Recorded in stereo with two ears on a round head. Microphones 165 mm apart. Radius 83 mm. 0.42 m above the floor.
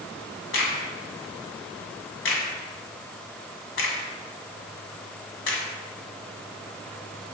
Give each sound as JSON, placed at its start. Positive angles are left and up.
{"t": 0.5, "sound": "a crack", "side_deg": 75, "distance_m": 1.8}